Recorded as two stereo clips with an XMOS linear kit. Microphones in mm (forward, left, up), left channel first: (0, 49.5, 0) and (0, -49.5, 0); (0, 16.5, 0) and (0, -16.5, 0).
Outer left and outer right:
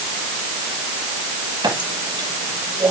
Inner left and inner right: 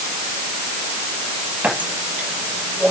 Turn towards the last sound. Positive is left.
turn(degrees=-45)  # may be behind; listen again after turning